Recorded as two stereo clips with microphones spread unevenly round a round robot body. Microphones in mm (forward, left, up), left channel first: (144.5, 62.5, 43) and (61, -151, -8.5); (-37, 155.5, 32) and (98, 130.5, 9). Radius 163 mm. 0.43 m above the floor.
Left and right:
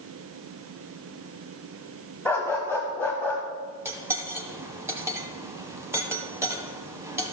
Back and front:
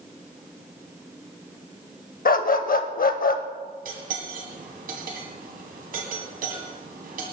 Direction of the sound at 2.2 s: 155° left.